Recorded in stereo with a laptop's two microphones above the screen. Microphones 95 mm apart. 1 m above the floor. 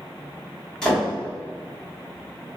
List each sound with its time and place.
0.8 s a door slam: 5° left (ahead or behind), 1.6 m